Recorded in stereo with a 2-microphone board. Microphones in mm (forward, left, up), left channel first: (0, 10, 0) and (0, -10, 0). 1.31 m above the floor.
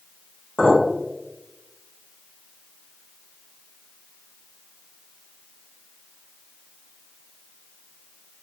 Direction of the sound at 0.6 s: 55° left (ahead or behind).